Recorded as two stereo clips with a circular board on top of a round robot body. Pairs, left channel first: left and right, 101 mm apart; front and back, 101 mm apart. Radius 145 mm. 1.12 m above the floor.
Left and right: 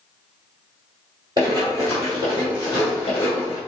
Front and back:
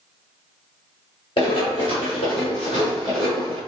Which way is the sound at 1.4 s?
40° right.